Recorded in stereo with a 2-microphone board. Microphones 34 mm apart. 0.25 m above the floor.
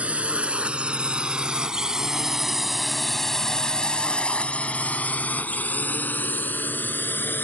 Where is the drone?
40° right (ahead or behind); by 7.5 s 70° left (ahead or behind).